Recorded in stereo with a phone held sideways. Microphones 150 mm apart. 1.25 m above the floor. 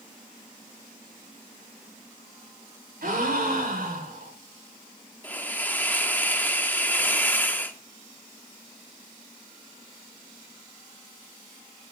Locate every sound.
3.0 s a gasp: 70° right (ahead or behind), 2.5 m
5.2 s a hiss: 10° left (ahead or behind), 0.8 m